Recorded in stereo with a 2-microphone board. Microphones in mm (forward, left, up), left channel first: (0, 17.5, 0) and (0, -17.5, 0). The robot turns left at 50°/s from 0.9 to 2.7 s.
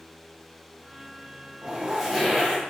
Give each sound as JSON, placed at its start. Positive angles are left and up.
{"t": 1.6, "sound": "a zipper", "azimuth_deg": -160, "distance_m": 1.0}